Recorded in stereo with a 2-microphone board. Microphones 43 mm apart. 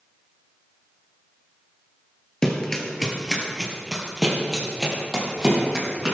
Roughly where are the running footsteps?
Centre.